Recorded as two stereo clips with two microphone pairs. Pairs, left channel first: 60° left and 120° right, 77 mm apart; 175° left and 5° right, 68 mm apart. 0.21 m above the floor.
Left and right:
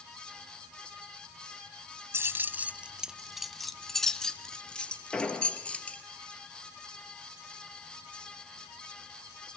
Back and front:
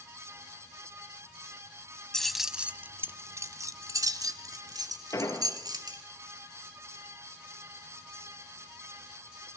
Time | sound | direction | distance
2.1 | keys jangling | 110° right | 0.7 m
5.1 | an explosion | 140° left | 3 m